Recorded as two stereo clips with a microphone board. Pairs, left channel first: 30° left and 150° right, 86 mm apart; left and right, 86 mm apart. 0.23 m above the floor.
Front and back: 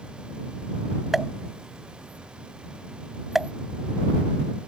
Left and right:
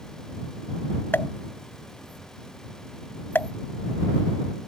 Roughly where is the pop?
Behind left.